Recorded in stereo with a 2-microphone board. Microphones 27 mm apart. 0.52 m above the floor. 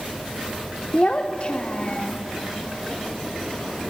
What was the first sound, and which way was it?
A child speaking, 40° left (ahead or behind).